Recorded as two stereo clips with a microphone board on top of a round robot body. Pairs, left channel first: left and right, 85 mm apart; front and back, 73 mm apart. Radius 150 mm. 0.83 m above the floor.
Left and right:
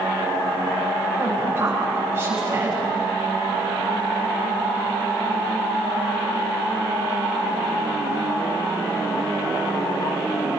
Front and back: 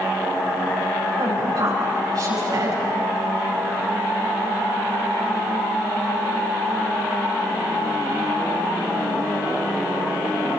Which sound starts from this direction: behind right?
A woman speaking, at 1.2 s.